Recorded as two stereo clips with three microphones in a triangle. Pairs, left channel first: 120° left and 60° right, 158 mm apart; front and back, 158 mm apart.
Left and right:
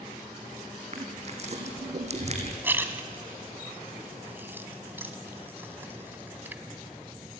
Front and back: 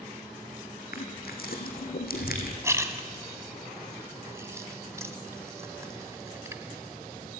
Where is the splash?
125° right, 1.6 m.